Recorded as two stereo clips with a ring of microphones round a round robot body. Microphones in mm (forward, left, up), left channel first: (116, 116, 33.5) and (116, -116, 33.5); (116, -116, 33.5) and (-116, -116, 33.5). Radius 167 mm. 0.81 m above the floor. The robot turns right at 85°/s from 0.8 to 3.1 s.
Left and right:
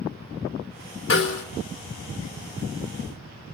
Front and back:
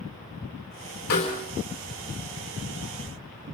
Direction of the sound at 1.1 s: 60° left.